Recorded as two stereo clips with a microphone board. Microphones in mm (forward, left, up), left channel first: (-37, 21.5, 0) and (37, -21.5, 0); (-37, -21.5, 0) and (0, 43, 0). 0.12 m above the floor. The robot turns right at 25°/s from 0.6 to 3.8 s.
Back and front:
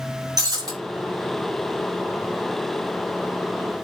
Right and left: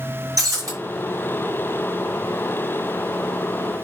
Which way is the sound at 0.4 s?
15° left.